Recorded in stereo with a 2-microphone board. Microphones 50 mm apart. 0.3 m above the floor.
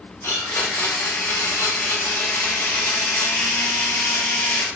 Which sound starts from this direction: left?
A blender, at 0.2 s.